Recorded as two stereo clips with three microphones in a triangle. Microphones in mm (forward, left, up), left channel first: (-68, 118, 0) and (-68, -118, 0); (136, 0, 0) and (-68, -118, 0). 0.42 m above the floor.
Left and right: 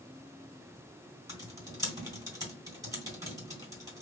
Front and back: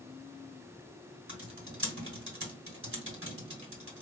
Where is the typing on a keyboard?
165° right, 2.5 m.